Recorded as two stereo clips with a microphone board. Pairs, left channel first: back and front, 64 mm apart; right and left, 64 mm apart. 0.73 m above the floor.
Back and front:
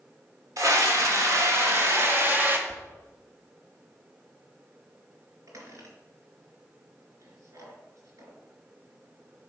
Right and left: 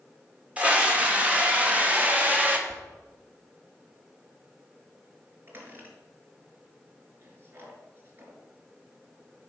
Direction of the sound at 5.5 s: 35° left.